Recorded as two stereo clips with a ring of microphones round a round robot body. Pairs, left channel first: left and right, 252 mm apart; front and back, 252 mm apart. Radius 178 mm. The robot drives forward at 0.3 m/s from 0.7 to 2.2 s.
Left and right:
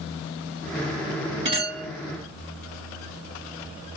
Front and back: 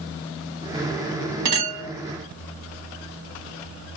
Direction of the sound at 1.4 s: 160° right.